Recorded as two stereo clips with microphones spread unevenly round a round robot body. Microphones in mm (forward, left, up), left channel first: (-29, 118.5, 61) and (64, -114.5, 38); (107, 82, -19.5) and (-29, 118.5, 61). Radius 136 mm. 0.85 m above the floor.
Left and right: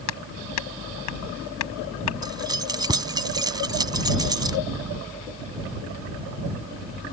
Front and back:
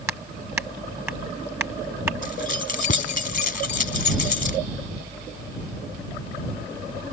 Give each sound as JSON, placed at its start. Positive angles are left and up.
{"t": 0.1, "sound": "hammering", "azimuth_deg": 90}
{"t": 2.2, "sound": "keys jangling", "azimuth_deg": 5}